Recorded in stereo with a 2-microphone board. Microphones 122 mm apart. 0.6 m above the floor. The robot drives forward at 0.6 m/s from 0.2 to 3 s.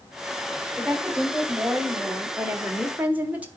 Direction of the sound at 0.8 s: 5° right (ahead or behind).